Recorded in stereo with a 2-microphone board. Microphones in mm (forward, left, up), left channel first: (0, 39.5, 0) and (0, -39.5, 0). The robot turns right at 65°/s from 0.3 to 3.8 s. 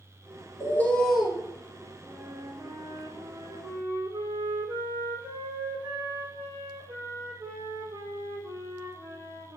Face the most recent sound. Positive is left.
turn(degrees=-55)